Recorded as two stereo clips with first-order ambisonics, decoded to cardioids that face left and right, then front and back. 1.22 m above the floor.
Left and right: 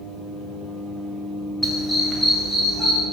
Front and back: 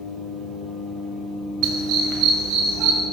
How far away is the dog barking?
About 1.4 m.